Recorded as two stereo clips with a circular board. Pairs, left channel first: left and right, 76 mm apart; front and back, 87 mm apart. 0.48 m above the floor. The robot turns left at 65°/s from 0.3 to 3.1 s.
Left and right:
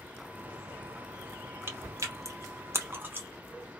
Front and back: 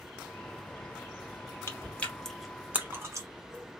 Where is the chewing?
45° right, 0.7 m; by 3.3 s 140° right, 0.7 m.